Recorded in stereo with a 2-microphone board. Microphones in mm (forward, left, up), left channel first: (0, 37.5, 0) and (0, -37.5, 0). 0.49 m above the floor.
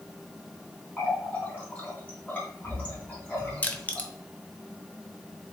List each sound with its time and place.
1.0 s a running tap: 20° left (ahead or behind), 2 m
3.6 s crushing: 20° left (ahead or behind), 0.6 m